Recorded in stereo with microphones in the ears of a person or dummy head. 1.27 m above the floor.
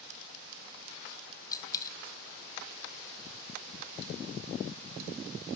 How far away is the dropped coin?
About 1.4 m.